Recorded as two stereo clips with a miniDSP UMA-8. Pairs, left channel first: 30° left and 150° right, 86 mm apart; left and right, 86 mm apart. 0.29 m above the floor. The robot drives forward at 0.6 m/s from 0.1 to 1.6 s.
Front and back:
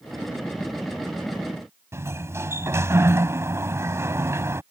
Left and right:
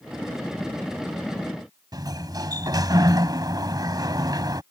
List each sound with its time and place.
1.9 s a sliding door: 105° right